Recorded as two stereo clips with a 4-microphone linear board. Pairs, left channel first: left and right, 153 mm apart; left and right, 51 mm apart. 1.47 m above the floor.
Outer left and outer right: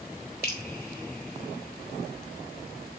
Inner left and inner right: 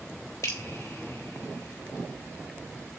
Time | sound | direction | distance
0.4 | dripping | 70° left (ahead or behind) | 2.5 m